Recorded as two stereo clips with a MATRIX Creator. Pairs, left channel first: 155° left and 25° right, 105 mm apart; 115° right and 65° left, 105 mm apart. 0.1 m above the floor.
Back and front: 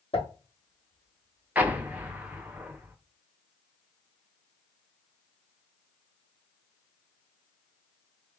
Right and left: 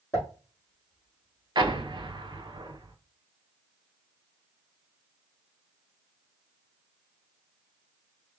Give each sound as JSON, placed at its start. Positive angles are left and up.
{"t": 0.1, "sound": "a pop", "azimuth_deg": -175, "distance_m": 3.0}
{"t": 1.6, "sound": "an explosion", "azimuth_deg": 45, "distance_m": 0.7}